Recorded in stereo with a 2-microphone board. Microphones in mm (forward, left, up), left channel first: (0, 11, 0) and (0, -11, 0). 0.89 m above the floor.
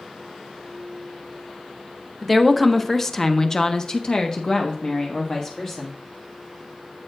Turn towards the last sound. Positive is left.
turn(degrees=30)  # may be behind; listen again after turning